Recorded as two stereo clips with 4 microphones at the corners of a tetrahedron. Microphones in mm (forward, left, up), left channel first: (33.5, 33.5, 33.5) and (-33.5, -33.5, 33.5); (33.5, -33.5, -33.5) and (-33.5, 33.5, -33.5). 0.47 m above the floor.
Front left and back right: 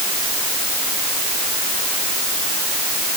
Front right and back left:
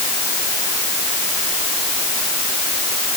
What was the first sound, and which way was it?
Only background noise.